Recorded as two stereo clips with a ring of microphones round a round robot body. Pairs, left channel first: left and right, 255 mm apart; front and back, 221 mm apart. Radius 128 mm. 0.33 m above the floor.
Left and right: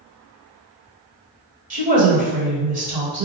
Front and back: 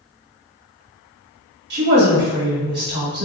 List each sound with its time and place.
1.7 s a woman speaking: 145° right, 1.5 m